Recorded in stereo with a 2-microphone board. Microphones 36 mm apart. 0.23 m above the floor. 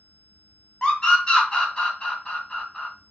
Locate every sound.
0.8 s a scream: 25° left (ahead or behind), 1.5 m